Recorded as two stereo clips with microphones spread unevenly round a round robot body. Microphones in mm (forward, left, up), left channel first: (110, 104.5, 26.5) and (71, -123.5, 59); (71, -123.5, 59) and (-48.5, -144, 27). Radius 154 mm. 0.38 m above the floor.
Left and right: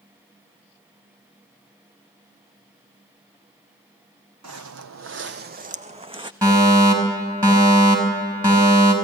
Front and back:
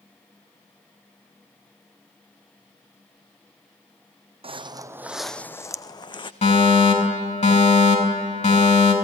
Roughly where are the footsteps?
Behind right.